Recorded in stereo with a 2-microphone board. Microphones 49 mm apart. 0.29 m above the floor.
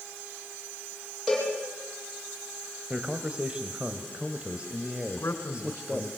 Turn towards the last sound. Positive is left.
turn(degrees=65)  # may be behind; listen again after turning